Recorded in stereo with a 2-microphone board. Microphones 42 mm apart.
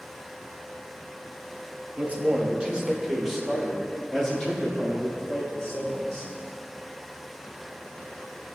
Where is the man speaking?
35° right (ahead or behind), 1.2 m; by 6.3 s 20° left (ahead or behind), 3 m.